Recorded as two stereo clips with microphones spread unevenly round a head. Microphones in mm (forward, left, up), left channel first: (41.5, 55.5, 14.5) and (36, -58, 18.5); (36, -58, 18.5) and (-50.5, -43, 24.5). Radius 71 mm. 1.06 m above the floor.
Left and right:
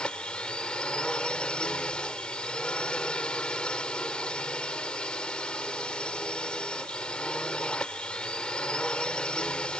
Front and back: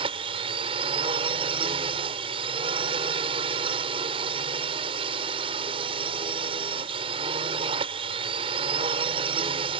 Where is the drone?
170° left.